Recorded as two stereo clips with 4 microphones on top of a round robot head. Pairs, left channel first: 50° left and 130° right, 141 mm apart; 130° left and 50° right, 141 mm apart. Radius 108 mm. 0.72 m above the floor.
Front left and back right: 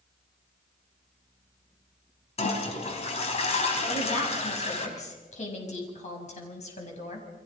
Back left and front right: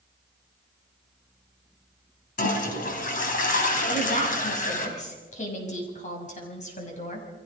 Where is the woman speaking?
90° left, 6 m.